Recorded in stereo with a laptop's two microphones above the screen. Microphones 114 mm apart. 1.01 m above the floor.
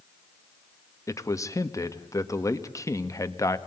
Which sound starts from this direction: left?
A man speaking, at 1.1 s.